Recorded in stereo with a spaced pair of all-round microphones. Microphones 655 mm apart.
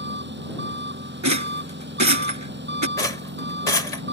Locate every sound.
0.0 s an engine running: 15° right (ahead or behind)
1.2 s a rattle: 25° right (ahead or behind)
3.0 s a rattle: 85° left